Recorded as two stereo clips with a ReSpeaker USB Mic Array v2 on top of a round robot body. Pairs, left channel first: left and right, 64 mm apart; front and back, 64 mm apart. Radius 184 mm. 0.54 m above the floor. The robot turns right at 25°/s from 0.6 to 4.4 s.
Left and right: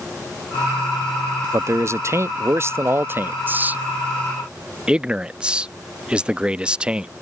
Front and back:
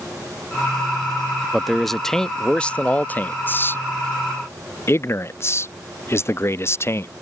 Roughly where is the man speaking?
Right.